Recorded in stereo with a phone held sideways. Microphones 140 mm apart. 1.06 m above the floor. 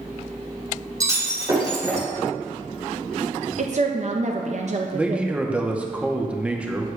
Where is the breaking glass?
25° right (ahead or behind), 3 m.